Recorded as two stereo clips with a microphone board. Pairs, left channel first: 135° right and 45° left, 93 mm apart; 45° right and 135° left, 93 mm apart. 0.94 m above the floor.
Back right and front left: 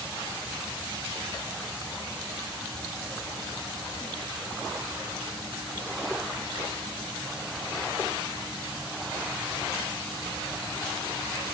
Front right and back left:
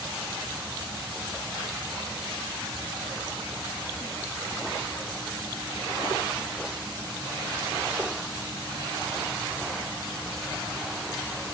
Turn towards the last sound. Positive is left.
No sound to turn to.